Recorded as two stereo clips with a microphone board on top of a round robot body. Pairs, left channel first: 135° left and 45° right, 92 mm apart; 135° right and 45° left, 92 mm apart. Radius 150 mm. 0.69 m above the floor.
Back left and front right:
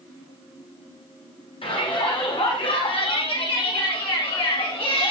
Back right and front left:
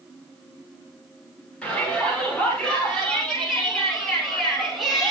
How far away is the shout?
About 9.5 m.